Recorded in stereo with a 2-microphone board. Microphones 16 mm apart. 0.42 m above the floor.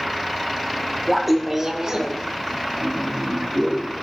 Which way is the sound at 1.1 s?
10° left (ahead or behind).